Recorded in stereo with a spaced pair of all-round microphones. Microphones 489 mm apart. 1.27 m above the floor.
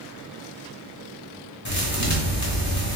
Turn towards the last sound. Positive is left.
turn(degrees=35)  # may be behind; listen again after turning